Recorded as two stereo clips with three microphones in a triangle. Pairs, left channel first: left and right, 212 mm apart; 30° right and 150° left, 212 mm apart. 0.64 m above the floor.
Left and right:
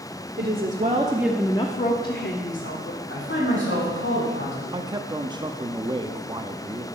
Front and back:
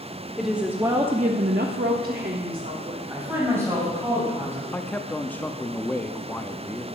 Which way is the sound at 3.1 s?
70° left.